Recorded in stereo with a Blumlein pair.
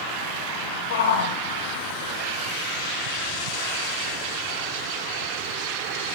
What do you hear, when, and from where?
0.9 s a shout: 60° left, 1.4 m